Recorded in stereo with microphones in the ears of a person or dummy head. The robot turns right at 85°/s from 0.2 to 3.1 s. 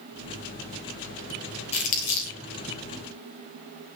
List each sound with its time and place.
1.7 s crumpling: 25° left (ahead or behind), 3.5 m; by 2.4 s 70° left (ahead or behind), 3.5 m